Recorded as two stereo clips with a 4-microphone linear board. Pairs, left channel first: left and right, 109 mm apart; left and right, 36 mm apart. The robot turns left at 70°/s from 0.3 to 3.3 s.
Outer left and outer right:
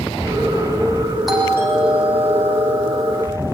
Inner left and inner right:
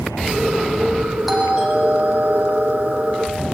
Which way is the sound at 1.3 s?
Straight ahead.